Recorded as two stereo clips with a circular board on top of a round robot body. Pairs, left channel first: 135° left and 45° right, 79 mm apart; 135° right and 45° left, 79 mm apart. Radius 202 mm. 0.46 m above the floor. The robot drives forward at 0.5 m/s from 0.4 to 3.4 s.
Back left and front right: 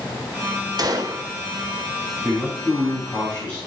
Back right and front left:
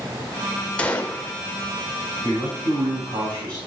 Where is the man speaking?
60° left, 5 m; by 3.6 s 65° left, 4.5 m.